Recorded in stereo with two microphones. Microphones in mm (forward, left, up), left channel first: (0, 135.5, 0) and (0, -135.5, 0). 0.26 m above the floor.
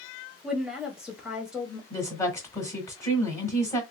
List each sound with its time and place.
0.4 s a woman speaking: 5° right (ahead or behind), 1.2 m
1.9 s a woman speaking: 10° left (ahead or behind), 1.1 m